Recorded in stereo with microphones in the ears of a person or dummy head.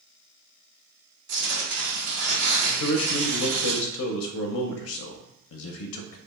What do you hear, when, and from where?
1.3 s tearing paper: 45° right (ahead or behind), 1.1 m
2.8 s a man speaking: 80° left, 0.5 m